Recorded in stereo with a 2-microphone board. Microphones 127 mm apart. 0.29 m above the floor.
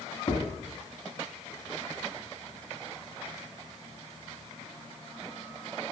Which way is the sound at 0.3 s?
30° left (ahead or behind).